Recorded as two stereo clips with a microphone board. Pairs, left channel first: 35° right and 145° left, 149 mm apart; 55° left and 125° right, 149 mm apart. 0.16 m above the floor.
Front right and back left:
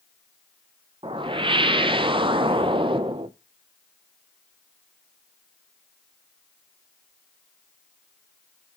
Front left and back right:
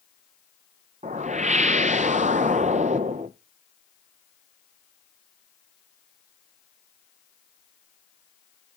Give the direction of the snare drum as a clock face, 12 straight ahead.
I don't hear a snare drum.